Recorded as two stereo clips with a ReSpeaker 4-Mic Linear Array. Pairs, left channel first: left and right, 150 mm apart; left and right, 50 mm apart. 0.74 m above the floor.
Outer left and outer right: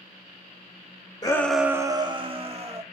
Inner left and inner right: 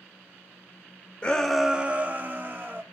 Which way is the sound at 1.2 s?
25° left (ahead or behind).